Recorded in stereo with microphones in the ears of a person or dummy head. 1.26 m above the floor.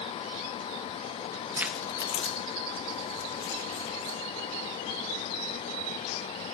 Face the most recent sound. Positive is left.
turn(degrees=50)  # may be behind; listen again after turning